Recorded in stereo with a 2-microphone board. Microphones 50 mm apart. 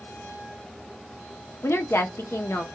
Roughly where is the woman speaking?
Left.